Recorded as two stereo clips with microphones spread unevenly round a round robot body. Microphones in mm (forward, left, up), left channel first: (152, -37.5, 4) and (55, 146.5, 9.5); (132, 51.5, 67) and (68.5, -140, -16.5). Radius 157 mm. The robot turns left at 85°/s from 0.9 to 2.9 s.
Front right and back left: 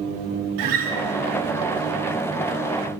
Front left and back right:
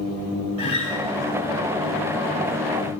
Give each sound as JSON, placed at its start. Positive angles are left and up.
{"t": 0.6, "sound": "a guitar", "azimuth_deg": 160, "distance_m": 3.0}